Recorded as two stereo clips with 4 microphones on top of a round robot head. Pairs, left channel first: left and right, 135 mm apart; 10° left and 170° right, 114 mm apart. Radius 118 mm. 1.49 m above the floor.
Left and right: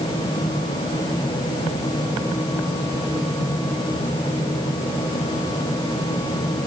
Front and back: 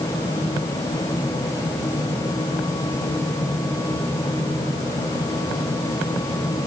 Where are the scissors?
No scissors in this recording.